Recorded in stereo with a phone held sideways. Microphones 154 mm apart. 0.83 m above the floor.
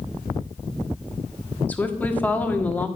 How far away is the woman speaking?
About 1.4 m.